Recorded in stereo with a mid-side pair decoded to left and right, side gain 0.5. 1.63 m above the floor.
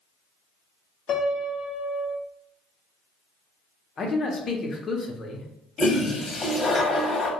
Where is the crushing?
I don't hear crushing.